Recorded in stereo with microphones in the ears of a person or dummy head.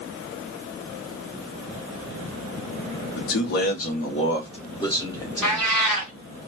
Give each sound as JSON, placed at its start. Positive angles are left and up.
{"t": 3.2, "sound": "a man speaking", "side_deg": 65, "distance_m": 0.7}
{"t": 5.4, "sound": "a cat meowing", "side_deg": 5, "distance_m": 2.5}